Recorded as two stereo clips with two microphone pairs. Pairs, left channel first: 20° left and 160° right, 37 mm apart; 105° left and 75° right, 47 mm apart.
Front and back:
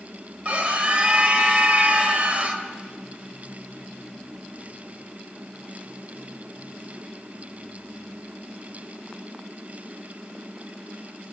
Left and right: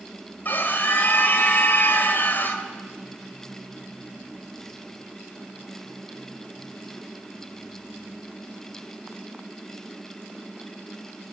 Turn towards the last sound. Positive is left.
turn(degrees=150)